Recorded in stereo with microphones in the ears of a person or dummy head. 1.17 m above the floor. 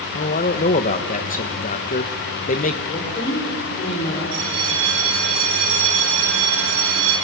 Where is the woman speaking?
35° left (ahead or behind), 4 m.